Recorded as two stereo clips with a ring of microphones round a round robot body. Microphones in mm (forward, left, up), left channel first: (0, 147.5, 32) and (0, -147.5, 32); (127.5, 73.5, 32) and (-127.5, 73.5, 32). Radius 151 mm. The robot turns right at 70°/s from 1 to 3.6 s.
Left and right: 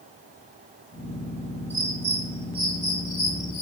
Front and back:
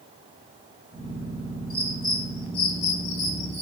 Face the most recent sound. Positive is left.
turn(degrees=85)